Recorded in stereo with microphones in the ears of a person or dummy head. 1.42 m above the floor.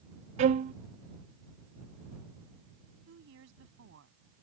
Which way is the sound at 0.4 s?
45° right (ahead or behind).